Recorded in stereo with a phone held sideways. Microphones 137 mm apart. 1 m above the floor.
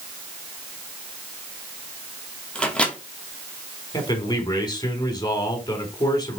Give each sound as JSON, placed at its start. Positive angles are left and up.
{"t": 2.5, "sound": "a microwave", "side_deg": 5, "distance_m": 1.9}
{"t": 3.9, "sound": "a man speaking", "side_deg": 30, "distance_m": 3.5}